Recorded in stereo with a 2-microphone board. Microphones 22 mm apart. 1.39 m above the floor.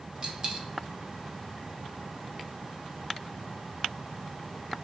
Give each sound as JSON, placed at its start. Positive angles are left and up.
{"t": 0.2, "sound": "a dropped coin", "side_deg": -35, "distance_m": 0.8}